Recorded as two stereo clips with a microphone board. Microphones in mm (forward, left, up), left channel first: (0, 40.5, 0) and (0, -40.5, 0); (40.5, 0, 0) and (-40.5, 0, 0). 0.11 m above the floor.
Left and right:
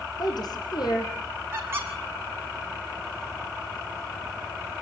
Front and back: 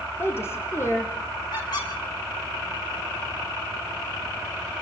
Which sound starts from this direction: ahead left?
A woman speaking, at 0.2 s.